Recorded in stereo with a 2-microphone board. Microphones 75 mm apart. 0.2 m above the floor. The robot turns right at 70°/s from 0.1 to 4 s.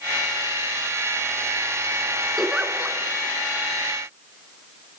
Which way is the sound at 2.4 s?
5° left (ahead or behind).